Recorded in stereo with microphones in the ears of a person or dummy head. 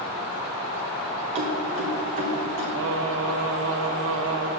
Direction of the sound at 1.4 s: 30° right (ahead or behind).